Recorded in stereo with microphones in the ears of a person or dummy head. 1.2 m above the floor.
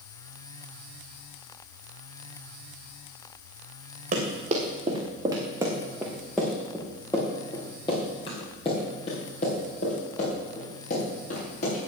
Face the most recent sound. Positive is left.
turn(degrees=50)  # may be behind; listen again after turning